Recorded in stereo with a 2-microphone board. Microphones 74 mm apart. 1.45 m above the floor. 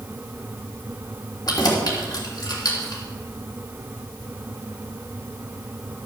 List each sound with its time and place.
1.5 s keys jangling: 55° left (ahead or behind), 3 m